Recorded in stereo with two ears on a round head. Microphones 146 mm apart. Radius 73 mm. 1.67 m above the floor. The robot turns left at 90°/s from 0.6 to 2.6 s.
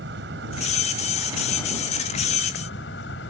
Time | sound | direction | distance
0.0 | an insect | 100° right | ?